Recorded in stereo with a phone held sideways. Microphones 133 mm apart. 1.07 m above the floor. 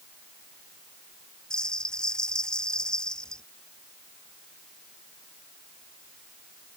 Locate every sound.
1.5 s a bell: 5° left (ahead or behind)